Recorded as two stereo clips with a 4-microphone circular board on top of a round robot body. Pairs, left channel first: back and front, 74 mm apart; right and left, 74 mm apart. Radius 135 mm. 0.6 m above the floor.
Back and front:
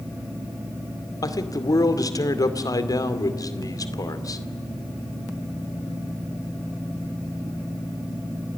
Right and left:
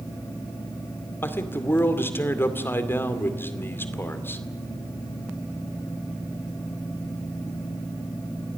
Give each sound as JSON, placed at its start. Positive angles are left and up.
{"t": 1.2, "sound": "a man speaking", "azimuth_deg": -150, "distance_m": 2.5}